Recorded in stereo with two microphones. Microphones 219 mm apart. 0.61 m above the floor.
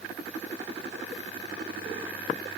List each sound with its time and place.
Only background noise.